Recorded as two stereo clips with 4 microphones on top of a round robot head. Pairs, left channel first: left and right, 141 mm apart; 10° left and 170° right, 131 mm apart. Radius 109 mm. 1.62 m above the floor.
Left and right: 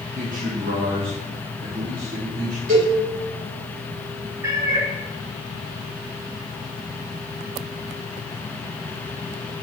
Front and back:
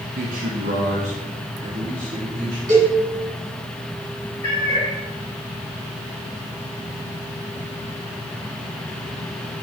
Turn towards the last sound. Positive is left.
turn(degrees=-40)